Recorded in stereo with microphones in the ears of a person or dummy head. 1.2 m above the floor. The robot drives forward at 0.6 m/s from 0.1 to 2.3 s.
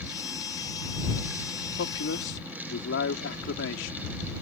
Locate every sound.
1.8 s a man speaking: 70° left (ahead or behind); by 4.1 s 65° left (ahead or behind)